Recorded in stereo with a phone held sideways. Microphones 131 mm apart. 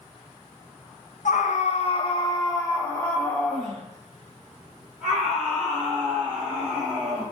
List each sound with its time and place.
1.2 s a scream: 75° left (ahead or behind), 0.6 m; by 7.2 s 10° right (ahead or behind), 3 m